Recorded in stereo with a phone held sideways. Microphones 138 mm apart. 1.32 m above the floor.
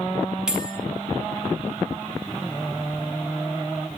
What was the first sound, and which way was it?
A bell, 5° right (ahead or behind).